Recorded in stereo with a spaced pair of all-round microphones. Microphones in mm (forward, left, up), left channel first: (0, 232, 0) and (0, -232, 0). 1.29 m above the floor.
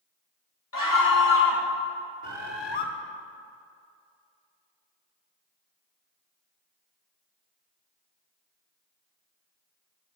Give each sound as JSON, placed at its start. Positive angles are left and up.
{"t": 0.7, "sound": "a scream", "side_deg": 45, "distance_m": 2.5}
{"t": 2.2, "sound": "a bird", "side_deg": 60, "distance_m": 1.4}